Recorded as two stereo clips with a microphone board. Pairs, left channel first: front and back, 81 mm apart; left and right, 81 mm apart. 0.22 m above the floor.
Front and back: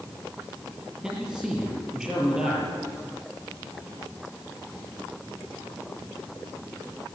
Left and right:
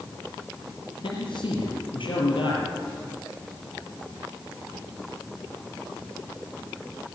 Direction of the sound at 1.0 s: 95° left.